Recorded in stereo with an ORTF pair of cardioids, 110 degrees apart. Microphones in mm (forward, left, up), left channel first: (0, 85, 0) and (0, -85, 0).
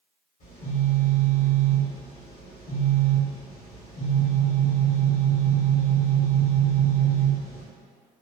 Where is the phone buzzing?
55° left, 1.4 m.